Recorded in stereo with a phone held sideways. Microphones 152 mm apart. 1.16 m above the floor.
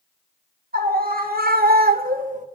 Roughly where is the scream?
Right.